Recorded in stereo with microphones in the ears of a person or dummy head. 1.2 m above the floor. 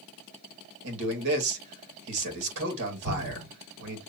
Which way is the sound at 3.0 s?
60° right (ahead or behind).